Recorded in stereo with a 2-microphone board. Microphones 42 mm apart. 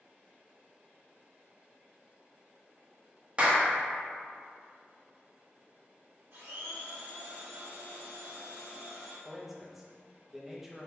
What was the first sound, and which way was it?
A clap, 25° right (ahead or behind).